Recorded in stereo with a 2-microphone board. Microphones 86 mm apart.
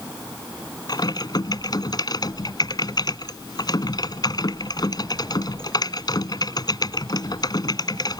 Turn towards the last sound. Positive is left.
turn(degrees=50)  # may be behind; listen again after turning